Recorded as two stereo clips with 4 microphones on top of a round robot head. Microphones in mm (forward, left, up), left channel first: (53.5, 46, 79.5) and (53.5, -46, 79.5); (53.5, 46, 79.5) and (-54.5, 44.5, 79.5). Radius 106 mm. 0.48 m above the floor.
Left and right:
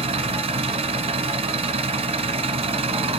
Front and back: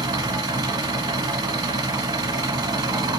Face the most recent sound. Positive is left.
turn(degrees=-120)